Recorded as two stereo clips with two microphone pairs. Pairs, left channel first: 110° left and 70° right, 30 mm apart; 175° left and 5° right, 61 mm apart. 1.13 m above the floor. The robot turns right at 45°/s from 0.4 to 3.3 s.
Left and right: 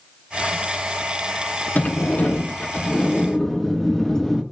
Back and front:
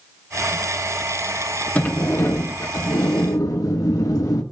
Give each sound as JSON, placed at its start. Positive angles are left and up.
{"t": 1.8, "sound": "a sliding door", "azimuth_deg": 110, "distance_m": 1.4}